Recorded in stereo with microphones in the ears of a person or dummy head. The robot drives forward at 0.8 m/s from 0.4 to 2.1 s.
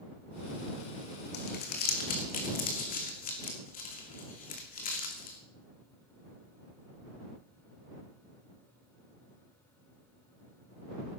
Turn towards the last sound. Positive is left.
turn(degrees=45)  # may be behind; listen again after turning